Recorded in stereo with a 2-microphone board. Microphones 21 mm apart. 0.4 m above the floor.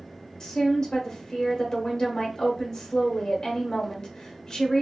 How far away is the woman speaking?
About 0.8 m.